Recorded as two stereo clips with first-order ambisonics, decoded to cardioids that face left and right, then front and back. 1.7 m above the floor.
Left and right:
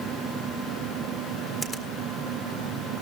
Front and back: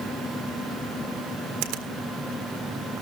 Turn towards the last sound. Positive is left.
turn(degrees=175)